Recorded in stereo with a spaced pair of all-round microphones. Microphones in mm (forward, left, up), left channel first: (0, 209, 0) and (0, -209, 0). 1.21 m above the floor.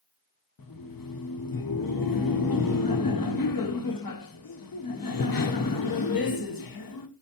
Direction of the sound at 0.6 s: 55° left (ahead or behind).